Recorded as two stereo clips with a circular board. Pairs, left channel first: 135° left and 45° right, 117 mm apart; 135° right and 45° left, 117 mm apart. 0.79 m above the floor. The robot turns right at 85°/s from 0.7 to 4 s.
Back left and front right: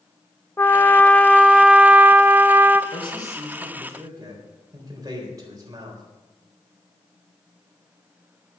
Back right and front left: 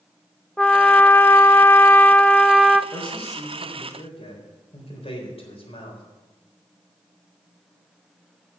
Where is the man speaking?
165° left, 3.5 m; by 6.0 s 105° right, 3.5 m.